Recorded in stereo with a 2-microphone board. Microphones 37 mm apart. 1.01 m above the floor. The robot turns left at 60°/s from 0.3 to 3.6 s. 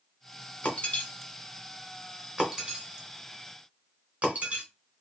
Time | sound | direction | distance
0.6 | breaking glass | 40° left (ahead or behind) | 1.1 m